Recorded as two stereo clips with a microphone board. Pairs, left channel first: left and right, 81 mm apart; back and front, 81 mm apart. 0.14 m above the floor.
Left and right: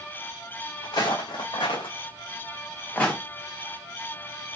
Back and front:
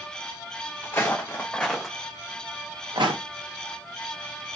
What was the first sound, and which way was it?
Footsteps, 120° left.